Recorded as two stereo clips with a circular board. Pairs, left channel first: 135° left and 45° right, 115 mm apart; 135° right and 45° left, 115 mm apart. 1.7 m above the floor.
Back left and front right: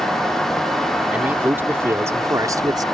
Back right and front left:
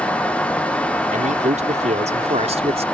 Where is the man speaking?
30° left; by 2.8 s 10° left.